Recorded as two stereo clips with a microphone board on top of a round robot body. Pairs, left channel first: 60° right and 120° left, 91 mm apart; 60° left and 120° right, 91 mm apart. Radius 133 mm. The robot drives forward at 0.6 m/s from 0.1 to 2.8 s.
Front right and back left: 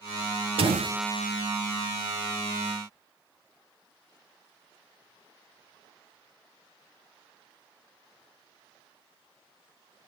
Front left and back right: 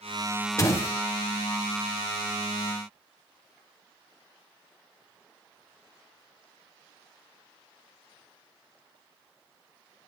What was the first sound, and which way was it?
A door slam, 115° left.